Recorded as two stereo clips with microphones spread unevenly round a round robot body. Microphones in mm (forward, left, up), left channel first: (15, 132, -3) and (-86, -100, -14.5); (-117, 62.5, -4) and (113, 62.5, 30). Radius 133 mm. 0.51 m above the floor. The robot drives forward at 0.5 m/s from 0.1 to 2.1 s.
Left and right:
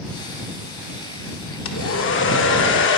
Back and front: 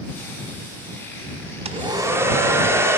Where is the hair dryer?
65° left, 0.9 m; by 3.0 s 85° left, 0.9 m.